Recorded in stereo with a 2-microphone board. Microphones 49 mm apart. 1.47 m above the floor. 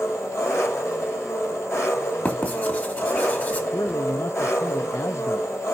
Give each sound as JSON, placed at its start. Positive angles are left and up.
{"t": 0.0, "sound": "an engine running", "side_deg": 70, "distance_m": 5.5}
{"t": 2.2, "sound": "writing", "side_deg": 35, "distance_m": 2.5}
{"t": 3.7, "sound": "a man speaking", "side_deg": 75, "distance_m": 0.6}